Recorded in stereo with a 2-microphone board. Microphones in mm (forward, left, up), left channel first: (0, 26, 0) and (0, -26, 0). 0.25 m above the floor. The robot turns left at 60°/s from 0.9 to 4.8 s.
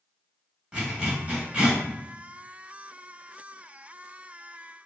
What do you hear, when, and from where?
0.7 s a zipper: 20° right (ahead or behind), 1.1 m; by 1.8 s 30° right (ahead or behind), 1.1 m